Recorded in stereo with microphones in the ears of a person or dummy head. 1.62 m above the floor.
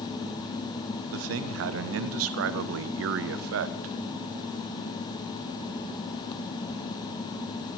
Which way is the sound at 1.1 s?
70° right (ahead or behind).